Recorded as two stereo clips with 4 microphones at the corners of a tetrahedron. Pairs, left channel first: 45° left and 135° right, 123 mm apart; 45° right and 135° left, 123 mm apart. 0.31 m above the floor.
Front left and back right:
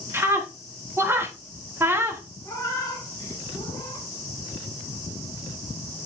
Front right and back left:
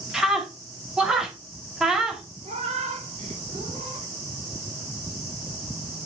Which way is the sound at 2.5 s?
105° left.